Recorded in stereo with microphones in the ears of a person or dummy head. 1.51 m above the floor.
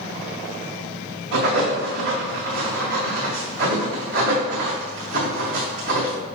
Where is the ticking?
I don't hear ticking.